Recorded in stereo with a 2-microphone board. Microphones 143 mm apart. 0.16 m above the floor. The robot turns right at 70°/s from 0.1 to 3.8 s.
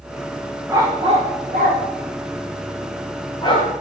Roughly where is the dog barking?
Centre.